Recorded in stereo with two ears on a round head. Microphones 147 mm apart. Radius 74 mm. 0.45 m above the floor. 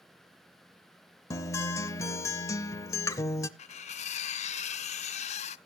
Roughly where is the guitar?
Centre.